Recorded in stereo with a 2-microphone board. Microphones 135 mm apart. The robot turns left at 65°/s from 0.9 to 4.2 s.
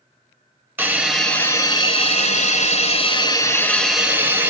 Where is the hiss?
160° right, 0.5 m; by 4.5 s 15° right, 0.5 m.